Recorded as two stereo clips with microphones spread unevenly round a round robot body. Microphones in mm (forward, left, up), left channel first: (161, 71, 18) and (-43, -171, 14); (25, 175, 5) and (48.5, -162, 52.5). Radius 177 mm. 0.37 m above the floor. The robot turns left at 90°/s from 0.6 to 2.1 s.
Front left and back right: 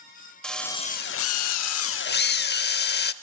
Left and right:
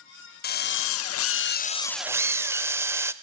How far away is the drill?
About 0.8 m.